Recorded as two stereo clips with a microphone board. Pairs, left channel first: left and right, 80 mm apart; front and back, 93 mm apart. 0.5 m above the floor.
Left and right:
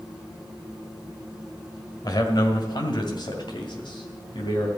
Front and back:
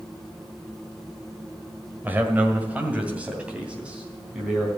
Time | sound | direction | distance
2.0 | a man speaking | 115° left | 1.7 m